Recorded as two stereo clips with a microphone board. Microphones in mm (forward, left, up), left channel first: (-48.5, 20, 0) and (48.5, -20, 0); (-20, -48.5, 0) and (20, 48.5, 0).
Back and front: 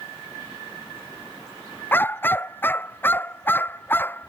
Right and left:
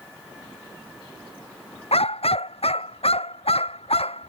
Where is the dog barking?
135° right.